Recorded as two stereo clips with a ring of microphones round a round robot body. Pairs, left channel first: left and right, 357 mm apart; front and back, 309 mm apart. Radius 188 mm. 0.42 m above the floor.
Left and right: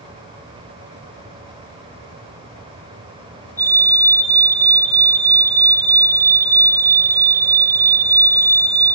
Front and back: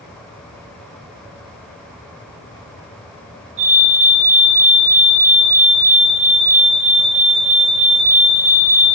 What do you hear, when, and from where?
3.6 s a fire alarm: 170° right, 5 m